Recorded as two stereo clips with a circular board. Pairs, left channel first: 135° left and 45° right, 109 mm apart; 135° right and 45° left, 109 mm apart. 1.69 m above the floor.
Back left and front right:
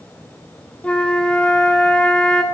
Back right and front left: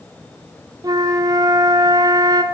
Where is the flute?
60° left, 0.6 m.